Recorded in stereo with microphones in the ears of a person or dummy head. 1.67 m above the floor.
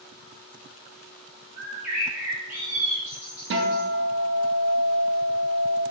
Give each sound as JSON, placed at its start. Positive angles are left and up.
{"t": 1.6, "sound": "a bird", "side_deg": -5, "distance_m": 1.3}
{"t": 3.5, "sound": "a guitar", "side_deg": -60, "distance_m": 0.7}